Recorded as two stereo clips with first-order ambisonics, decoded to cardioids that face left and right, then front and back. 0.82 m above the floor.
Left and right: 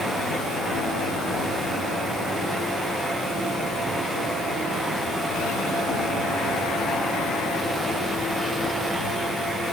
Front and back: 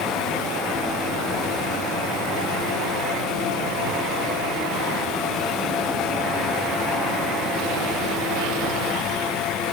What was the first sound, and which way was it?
Only background noise.